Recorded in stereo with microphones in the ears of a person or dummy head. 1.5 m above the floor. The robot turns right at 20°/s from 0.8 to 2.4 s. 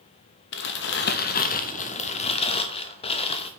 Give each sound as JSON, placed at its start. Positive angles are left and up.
{"t": 0.5, "sound": "crumpling", "azimuth_deg": 120, "distance_m": 0.5}